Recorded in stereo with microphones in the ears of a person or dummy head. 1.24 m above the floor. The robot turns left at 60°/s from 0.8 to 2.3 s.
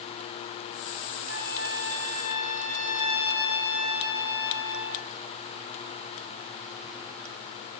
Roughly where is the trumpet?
Right.